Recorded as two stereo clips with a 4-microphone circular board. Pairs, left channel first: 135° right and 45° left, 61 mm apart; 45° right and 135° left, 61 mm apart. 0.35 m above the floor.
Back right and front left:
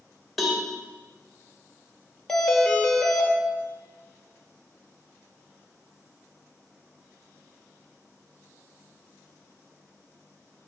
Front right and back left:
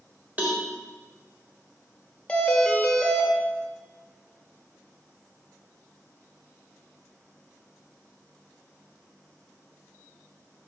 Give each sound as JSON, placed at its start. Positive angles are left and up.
{"t": 0.4, "sound": "a cowbell", "azimuth_deg": 135, "distance_m": 1.2}
{"t": 2.3, "sound": "a doorbell", "azimuth_deg": -65, "distance_m": 1.3}